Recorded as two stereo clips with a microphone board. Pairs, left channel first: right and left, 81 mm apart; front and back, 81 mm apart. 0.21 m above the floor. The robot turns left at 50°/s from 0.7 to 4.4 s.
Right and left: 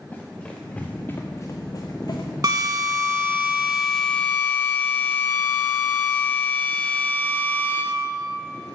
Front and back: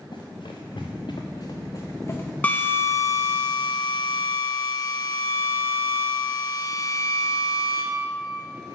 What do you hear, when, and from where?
0.1 s running footsteps: 20° right, 1.7 m; by 3.4 s 80° right, 1.3 m
2.4 s a drill: 65° left, 1.1 m; by 7.8 s 30° right, 1.1 m